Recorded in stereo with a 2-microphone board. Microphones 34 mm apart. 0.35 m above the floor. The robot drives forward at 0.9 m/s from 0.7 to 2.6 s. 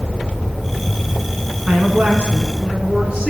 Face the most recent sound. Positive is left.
turn(degrees=-25)  # may be behind; listen again after turning